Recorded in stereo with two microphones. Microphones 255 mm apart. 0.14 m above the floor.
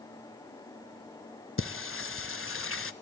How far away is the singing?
About 0.6 m.